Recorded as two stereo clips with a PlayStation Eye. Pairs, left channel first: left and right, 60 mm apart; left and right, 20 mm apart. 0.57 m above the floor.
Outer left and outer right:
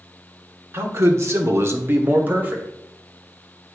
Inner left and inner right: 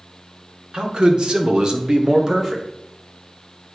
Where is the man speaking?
45° right (ahead or behind), 1.3 m; by 2.7 s 25° right (ahead or behind), 2 m.